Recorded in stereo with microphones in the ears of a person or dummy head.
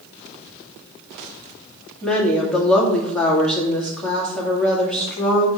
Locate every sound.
2.0 s a woman speaking: 5° left (ahead or behind), 2 m